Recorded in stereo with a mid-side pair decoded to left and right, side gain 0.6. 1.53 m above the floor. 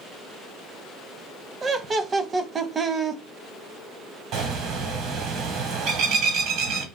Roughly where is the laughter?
Ahead right.